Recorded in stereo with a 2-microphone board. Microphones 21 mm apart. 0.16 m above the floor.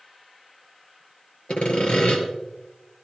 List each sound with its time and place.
1.5 s sawing: 65° left (ahead or behind), 3 m